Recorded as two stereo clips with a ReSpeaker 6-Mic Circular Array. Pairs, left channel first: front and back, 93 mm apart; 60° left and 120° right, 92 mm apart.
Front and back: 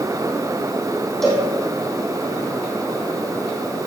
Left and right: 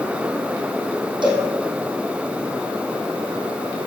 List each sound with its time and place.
1.2 s a cowbell: 85° right, 3 m